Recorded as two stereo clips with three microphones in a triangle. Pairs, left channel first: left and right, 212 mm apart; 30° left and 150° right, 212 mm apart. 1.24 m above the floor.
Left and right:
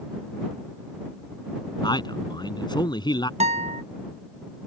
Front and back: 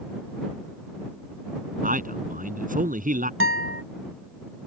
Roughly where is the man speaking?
Behind.